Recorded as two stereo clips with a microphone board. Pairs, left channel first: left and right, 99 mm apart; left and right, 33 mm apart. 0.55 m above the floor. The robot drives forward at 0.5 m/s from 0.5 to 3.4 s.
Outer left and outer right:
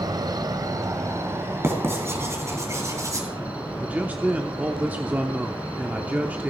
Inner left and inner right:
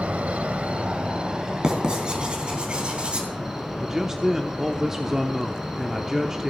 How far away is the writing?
About 3.5 m.